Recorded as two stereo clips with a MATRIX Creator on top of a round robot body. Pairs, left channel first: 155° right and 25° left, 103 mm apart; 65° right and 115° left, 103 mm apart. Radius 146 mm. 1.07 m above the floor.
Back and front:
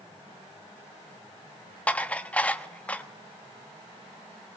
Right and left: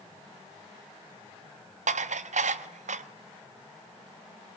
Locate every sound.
1.9 s dishes clattering: 125° left, 1.0 m